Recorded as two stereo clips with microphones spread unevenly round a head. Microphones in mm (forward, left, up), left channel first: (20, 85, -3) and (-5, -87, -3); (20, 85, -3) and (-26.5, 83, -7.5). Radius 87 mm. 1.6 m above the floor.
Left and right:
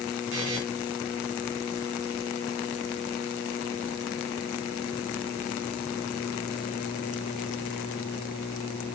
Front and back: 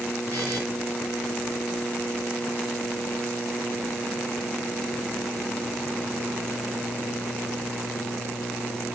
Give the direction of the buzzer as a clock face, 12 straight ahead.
4 o'clock.